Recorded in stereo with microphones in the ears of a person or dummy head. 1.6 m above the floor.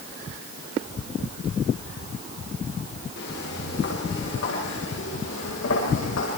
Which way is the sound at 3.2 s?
65° left (ahead or behind).